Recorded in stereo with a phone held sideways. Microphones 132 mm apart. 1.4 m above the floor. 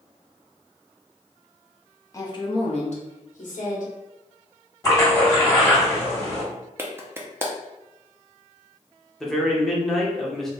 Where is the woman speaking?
25° left (ahead or behind), 0.7 m; by 3.9 s 80° left, 1.3 m.